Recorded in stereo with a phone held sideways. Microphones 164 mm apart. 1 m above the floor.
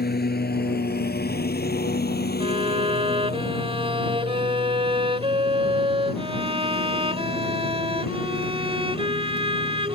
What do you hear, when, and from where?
0.0 s a lawn mower: 75° left (ahead or behind); by 10.0 s 70° left (ahead or behind)
2.4 s a violin: 35° right (ahead or behind)